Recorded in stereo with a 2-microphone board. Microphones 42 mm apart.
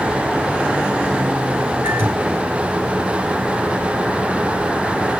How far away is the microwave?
About 3 m.